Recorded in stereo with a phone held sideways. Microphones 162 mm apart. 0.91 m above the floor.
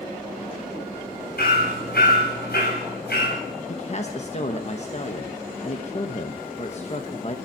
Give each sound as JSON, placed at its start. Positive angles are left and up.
{"t": 1.4, "sound": "hammering", "side_deg": 80, "distance_m": 5.5}
{"t": 3.7, "sound": "a man speaking", "side_deg": 45, "distance_m": 1.1}